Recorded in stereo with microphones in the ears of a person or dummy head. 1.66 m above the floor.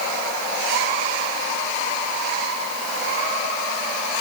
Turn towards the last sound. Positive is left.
No sound to turn to.